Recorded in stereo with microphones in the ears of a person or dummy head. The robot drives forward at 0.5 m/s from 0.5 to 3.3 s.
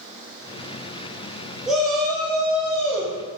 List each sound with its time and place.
1.7 s a shout: centre (ahead or behind), 0.7 m